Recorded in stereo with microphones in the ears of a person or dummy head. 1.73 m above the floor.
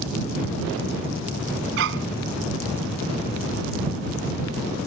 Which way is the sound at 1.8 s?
70° right (ahead or behind).